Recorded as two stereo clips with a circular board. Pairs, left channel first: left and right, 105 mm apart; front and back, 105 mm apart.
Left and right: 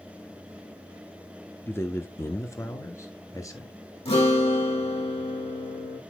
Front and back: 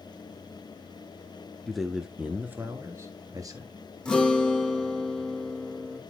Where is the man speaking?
80° left, 1.1 m; by 3.7 s 140° left, 1.7 m.